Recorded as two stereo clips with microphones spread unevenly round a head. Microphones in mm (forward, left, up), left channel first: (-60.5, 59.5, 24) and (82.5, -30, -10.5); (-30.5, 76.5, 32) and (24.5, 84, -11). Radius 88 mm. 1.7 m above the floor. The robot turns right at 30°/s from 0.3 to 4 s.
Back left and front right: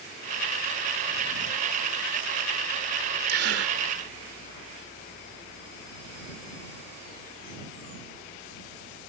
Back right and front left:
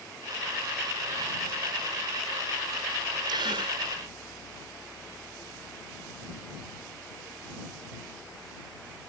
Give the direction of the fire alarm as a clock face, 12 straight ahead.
I don't hear a fire alarm.